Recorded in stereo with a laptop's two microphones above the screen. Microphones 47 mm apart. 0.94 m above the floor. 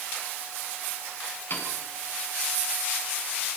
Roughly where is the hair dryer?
I don't hear a hair dryer.